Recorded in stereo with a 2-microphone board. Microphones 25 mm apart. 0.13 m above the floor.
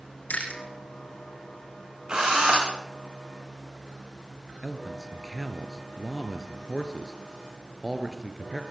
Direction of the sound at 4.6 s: 15° right (ahead or behind).